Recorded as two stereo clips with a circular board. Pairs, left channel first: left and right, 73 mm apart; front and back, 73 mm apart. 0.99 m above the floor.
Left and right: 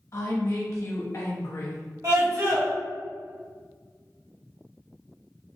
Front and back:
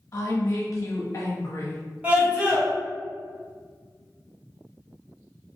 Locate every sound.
0.1 s a woman speaking: 45° left, 0.9 m
2.0 s a scream: 115° right, 1.7 m